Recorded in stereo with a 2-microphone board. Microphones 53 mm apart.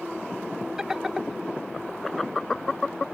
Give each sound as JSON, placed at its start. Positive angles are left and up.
{"t": 0.8, "sound": "laughter", "side_deg": -10}